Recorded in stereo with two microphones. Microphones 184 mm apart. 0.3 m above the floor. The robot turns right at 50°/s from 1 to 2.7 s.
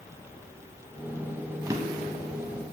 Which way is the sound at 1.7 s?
15° right (ahead or behind).